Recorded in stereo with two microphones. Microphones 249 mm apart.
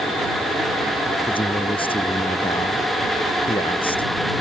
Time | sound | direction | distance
1.3 | a man speaking | 20° left (ahead or behind) | ?